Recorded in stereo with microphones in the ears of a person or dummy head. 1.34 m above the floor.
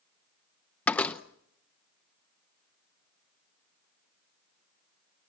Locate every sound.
0.9 s a door slam: 10° left (ahead or behind), 0.6 m